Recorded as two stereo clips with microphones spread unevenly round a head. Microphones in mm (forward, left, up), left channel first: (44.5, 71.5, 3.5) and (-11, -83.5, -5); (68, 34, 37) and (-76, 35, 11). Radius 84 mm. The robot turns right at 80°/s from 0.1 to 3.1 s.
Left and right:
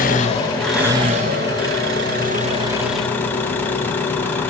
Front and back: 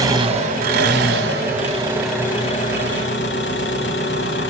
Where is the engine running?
110° left, 3 m; by 4.5 s 10° right, 3 m.